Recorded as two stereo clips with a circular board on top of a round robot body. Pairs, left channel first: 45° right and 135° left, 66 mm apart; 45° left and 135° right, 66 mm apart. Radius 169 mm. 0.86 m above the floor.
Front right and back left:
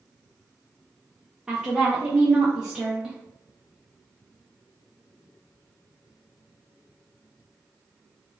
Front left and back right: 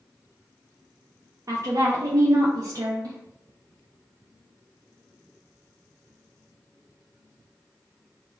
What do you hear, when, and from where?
1.5 s a woman speaking: 145° right, 0.7 m